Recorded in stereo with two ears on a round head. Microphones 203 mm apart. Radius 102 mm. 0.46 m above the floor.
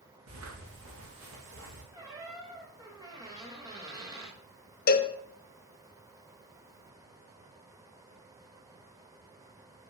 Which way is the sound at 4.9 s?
40° left (ahead or behind).